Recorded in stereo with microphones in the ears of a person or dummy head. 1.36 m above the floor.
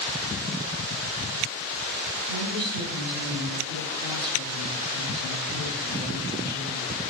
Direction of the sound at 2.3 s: 50° right (ahead or behind).